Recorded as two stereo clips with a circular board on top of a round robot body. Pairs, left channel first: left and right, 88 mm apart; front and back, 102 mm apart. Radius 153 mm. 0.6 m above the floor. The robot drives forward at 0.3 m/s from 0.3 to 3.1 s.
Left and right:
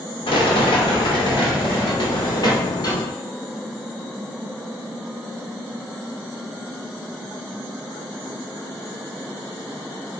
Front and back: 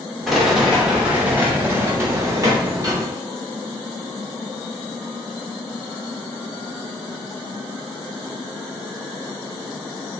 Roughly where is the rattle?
Left.